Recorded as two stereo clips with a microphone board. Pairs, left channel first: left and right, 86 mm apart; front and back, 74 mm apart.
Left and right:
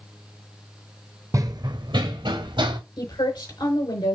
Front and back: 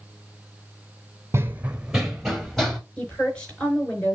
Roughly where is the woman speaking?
Left.